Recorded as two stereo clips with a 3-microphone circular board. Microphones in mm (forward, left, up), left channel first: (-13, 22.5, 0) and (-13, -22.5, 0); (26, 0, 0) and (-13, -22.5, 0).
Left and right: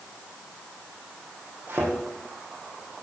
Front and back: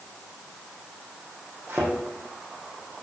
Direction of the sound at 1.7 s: 120° right.